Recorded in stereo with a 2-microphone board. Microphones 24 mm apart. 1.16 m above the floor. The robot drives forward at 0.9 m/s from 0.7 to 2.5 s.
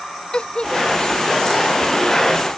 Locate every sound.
0.3 s a giggle: 40° left (ahead or behind)